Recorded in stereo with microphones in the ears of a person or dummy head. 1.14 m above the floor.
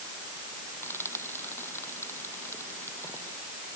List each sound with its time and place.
0.8 s frying: 15° left (ahead or behind)